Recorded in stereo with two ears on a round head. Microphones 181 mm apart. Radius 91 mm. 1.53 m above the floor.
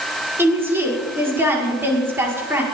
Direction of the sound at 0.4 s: 10° right (ahead or behind).